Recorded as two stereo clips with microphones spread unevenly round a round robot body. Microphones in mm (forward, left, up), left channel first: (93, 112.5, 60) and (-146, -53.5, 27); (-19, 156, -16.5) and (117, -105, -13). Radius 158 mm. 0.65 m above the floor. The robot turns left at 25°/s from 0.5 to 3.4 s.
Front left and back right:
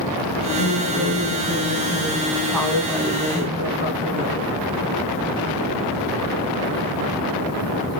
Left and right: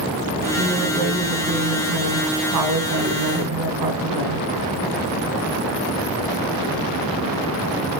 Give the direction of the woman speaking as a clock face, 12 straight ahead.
12 o'clock.